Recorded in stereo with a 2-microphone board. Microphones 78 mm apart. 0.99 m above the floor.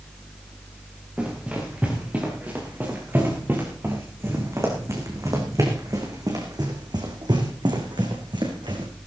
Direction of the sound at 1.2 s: 15° right (ahead or behind).